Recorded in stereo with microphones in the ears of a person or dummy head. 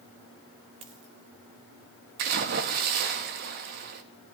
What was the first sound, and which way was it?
A dropped coin, 25° right (ahead or behind).